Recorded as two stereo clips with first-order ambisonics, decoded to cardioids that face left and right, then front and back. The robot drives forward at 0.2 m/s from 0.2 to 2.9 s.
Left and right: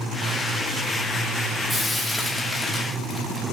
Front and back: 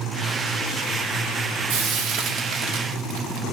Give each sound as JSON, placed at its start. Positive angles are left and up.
{"t": 1.7, "sound": "frying", "azimuth_deg": 175, "distance_m": 1.0}